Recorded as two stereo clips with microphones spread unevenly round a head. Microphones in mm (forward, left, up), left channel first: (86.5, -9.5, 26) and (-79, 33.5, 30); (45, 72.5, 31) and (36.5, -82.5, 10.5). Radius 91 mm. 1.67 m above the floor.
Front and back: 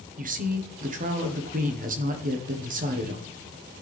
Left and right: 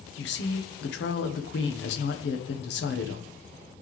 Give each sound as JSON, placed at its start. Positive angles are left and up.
{"t": 0.2, "sound": "a woman speaking", "azimuth_deg": 120, "distance_m": 1.3}